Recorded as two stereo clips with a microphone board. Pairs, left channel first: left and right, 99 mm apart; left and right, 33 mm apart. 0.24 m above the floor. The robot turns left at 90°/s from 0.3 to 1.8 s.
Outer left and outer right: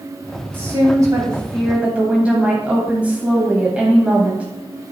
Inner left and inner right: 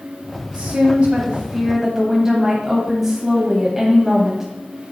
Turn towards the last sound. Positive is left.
turn(degrees=-155)